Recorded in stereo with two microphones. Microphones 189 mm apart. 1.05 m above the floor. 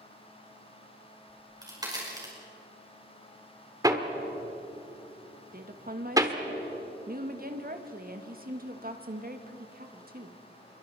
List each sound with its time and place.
1.3 s a crack: 20° right (ahead or behind), 5.5 m
3.8 s hammering: 20° right (ahead or behind), 1.3 m
5.5 s a woman speaking: 50° right (ahead or behind), 1.5 m